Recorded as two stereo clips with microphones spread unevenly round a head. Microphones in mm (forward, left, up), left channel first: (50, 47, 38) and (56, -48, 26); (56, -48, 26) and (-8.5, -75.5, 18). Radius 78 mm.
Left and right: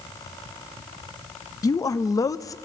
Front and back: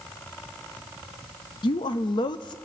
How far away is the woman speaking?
About 0.5 m.